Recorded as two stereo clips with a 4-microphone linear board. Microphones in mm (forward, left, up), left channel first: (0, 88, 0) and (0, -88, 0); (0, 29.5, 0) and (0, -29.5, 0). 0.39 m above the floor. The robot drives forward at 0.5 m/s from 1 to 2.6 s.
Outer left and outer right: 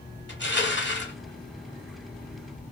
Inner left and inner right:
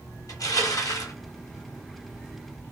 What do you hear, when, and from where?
0.3 s crushing: 80° left, 1.3 m; by 1.1 s 75° left (ahead or behind), 1.3 m